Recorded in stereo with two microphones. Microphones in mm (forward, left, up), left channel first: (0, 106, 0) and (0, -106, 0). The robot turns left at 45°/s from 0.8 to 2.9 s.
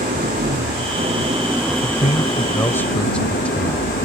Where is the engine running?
135° right; by 4.1 s 130° left.